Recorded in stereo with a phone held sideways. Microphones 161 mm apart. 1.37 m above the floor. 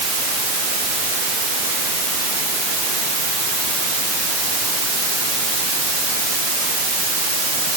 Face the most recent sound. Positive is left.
No sound to turn to.